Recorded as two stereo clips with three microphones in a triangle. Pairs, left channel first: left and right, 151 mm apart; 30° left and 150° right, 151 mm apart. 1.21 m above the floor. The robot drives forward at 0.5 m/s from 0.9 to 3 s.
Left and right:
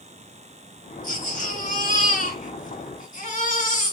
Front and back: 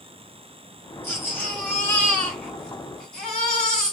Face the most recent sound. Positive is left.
turn(degrees=115)